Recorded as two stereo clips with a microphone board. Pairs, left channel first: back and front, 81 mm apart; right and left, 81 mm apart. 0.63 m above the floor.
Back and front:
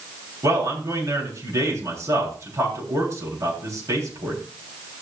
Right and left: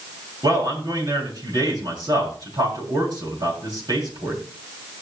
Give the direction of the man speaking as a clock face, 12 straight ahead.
10 o'clock.